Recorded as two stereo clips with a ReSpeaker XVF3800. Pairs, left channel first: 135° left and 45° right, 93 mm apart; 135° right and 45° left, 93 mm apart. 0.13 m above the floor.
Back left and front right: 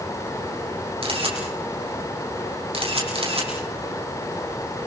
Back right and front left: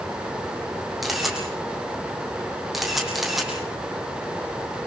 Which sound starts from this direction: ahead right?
A camera shutter, at 1.0 s.